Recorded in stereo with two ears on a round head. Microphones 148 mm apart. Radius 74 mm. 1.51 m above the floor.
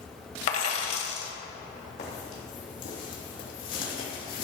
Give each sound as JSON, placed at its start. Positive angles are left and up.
{"t": 0.5, "sound": "a dropped coin", "side_deg": 40, "distance_m": 1.6}
{"t": 2.0, "sound": "footsteps", "side_deg": 45, "distance_m": 3.5}